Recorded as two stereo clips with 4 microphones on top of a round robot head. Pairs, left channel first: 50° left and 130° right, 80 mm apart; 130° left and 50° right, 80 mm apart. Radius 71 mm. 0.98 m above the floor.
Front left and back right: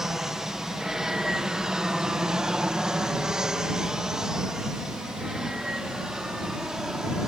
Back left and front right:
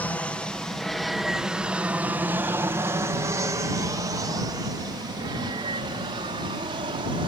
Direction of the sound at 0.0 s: 155° left.